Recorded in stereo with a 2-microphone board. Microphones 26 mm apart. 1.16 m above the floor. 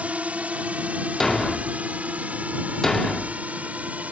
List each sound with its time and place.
0.0 s a drone: 60° right (ahead or behind); by 4.1 s 70° right (ahead or behind)
1.2 s a thud: 20° left (ahead or behind)